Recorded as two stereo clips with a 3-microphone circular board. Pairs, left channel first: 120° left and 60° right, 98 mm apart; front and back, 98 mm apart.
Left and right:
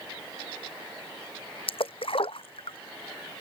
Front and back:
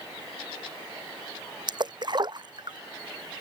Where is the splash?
140° left.